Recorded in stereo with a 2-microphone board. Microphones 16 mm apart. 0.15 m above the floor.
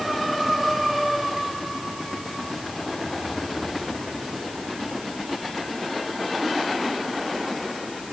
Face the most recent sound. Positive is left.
No sound to turn to.